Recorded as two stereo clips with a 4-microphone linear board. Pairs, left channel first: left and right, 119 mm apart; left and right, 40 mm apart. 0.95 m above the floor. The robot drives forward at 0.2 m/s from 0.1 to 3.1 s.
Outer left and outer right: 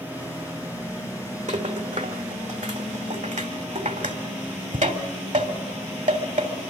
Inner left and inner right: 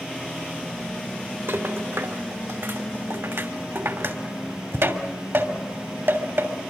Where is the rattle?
80° right, 2.5 m.